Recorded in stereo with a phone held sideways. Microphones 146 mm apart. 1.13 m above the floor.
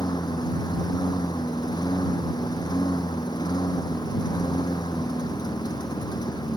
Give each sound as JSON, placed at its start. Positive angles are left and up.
{"t": 0.0, "sound": "a lawn mower", "side_deg": 30}